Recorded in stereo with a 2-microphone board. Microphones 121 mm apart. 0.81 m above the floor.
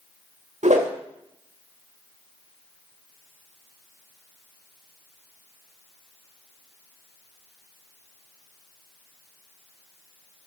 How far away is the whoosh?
About 2 m.